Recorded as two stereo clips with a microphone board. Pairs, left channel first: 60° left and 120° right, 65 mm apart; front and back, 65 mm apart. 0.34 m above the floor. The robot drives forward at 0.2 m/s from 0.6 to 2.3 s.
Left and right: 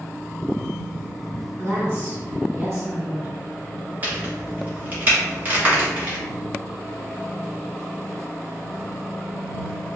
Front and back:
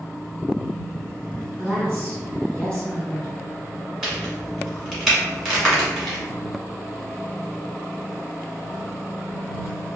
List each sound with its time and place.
1.6 s a woman speaking: 145° right, 1.8 m; by 3.3 s 150° right, 1.9 m
4.0 s a crack: 110° right, 1.3 m